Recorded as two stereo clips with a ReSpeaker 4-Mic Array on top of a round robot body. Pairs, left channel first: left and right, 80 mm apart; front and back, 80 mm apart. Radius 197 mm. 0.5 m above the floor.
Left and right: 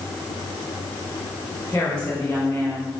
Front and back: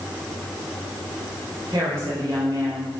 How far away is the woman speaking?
About 3.5 m.